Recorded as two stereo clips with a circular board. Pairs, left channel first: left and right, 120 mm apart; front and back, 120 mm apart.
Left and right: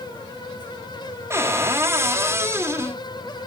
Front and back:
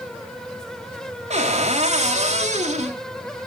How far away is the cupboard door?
About 2 m.